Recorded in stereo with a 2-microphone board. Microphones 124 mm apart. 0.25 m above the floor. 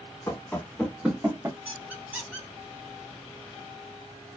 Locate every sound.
0.3 s running footsteps: 20° left (ahead or behind), 0.9 m; by 1.6 s 25° right (ahead or behind), 0.8 m
1.6 s a squeak: 15° right (ahead or behind), 1.4 m